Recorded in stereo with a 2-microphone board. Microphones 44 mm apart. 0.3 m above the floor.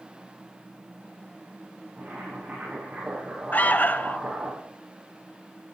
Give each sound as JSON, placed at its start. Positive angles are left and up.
{"t": 2.0, "sound": "boiling", "side_deg": -35, "distance_m": 8.0}
{"t": 3.5, "sound": "an alarm", "side_deg": 40, "distance_m": 0.7}